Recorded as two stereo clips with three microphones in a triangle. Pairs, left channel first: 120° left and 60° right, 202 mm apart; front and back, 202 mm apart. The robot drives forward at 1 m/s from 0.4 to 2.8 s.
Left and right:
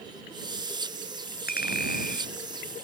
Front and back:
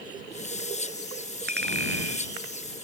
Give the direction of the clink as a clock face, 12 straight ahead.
7 o'clock.